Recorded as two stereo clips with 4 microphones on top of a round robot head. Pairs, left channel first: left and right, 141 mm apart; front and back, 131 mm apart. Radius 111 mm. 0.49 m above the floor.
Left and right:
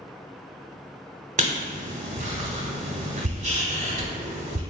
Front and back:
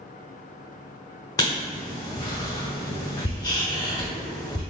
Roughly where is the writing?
Ahead right.